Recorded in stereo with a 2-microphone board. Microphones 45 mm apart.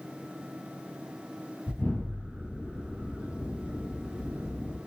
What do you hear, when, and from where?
1.7 s an explosion: 45° left (ahead or behind), 1.4 m